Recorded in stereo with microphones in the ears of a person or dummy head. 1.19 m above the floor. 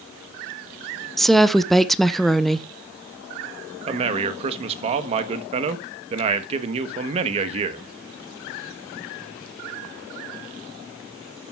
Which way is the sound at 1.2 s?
Centre (ahead or behind).